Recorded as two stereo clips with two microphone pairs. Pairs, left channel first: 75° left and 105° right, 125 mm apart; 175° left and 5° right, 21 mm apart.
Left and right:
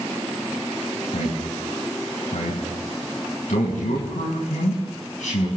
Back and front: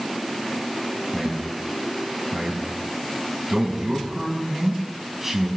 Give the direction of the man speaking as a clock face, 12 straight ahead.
10 o'clock.